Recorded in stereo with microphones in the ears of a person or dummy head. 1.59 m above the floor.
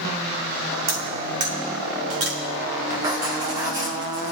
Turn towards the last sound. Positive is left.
turn(degrees=-15)  # may be behind; listen again after turning